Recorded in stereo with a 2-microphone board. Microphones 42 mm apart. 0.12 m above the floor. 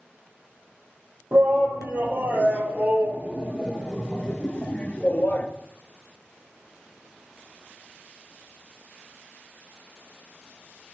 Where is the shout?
60° right (ahead or behind), 3 m; by 5.5 s 40° left (ahead or behind), 1.8 m.